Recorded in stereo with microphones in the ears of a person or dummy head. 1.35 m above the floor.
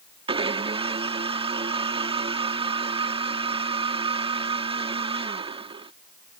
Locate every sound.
0.3 s a blender: 30° right (ahead or behind)